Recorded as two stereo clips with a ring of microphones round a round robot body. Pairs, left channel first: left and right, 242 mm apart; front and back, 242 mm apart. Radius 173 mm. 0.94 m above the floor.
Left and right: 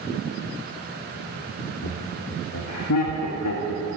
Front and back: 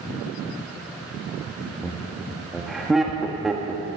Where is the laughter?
90° left, 1.4 m.